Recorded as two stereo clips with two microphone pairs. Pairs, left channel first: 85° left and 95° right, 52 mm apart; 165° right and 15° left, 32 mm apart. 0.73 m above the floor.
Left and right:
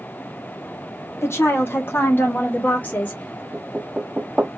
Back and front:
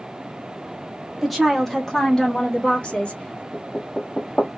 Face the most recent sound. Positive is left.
turn(degrees=-145)